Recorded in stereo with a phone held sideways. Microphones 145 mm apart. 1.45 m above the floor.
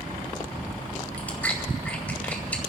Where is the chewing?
10° left (ahead or behind), 2.0 m.